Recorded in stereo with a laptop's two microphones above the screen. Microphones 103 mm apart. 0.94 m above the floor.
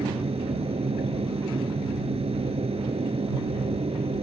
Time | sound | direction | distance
0.0 | a machine running | 75° right (ahead or behind) | ?